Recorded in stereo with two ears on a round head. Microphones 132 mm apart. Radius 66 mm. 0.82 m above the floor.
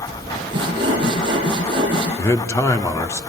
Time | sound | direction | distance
0.5 | sawing | 30° right (ahead or behind) | 6.5 m
2.2 | a man speaking | 20° left (ahead or behind) | 1.8 m